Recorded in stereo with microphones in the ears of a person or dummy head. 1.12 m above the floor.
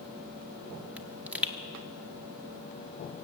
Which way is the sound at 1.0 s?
5° right (ahead or behind).